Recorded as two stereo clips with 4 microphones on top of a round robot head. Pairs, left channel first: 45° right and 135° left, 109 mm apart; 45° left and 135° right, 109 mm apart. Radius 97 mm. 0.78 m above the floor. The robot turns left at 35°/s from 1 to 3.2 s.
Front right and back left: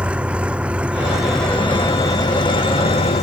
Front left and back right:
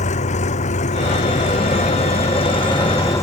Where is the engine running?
55° left; by 3.2 s 20° right.